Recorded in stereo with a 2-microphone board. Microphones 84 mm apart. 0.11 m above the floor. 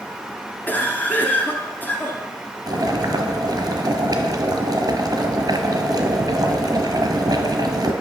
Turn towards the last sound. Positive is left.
turn(degrees=-50)  # may be behind; listen again after turning